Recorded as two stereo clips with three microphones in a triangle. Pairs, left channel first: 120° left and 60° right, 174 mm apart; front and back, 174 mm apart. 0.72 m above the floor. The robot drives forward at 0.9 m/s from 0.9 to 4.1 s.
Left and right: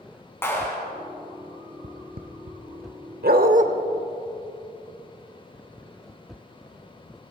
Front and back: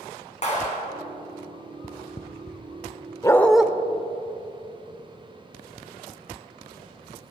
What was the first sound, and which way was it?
A clap, 45° left.